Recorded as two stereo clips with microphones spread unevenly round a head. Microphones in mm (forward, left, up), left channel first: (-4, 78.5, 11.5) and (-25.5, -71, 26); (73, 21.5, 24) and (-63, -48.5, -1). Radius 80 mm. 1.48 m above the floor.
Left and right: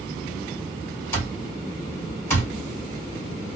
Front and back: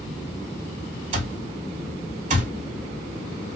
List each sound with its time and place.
1.1 s an alarm clock: 160° left, 2 m